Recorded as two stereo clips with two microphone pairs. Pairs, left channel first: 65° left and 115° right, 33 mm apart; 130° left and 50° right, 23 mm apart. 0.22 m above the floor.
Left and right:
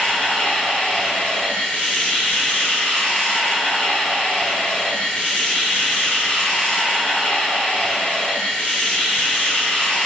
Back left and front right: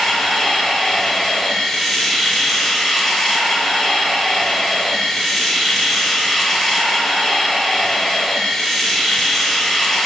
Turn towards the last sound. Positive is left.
turn(degrees=70)